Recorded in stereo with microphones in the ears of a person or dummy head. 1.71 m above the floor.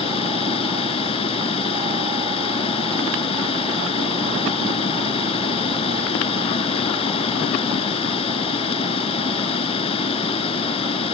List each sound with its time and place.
0.0 s running water: 30° left (ahead or behind)